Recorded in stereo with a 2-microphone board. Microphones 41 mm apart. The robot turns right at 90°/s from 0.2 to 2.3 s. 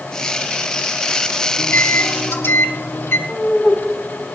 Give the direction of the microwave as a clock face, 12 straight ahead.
11 o'clock.